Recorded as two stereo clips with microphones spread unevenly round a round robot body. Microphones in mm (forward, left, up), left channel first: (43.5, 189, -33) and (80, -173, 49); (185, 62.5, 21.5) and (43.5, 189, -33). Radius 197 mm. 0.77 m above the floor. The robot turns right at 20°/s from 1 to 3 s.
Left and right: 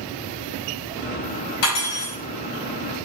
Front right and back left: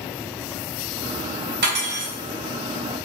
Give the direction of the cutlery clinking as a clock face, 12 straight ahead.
8 o'clock.